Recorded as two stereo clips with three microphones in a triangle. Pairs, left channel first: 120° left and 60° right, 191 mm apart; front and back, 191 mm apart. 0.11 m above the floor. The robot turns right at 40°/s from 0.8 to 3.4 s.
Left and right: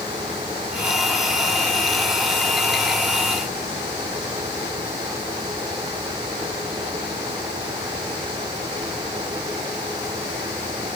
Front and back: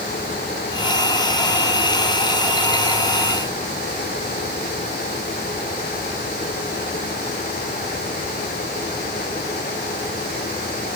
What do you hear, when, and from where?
Only background noise.